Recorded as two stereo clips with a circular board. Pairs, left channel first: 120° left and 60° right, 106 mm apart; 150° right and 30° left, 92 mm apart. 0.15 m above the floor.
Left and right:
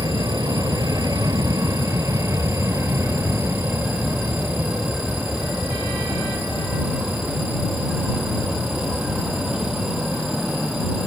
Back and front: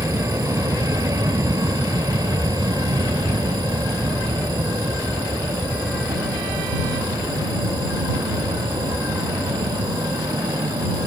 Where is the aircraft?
20° right; by 11.1 s 25° left.